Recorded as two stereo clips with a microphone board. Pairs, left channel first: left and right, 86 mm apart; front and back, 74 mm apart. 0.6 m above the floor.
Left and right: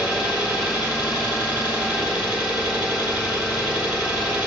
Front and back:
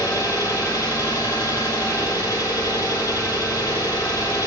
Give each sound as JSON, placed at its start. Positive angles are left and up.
{"t": 0.0, "sound": "an engine running", "azimuth_deg": -5, "distance_m": 1.3}